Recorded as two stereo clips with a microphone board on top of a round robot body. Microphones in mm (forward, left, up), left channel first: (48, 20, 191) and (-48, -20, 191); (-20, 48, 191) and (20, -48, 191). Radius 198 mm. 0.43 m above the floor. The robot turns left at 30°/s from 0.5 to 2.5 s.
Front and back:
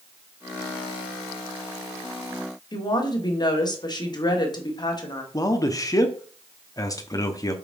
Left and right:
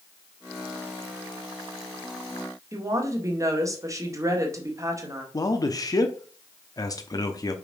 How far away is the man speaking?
About 1.1 m.